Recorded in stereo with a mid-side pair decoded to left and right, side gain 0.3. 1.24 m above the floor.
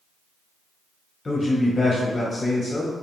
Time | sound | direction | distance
1.2 | a man speaking | 45° left | 0.7 m